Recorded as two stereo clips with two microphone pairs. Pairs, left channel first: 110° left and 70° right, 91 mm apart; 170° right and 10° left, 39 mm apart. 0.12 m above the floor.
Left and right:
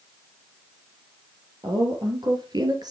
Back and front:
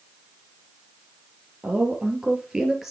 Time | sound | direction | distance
1.6 | a woman speaking | 40° right | 3.5 m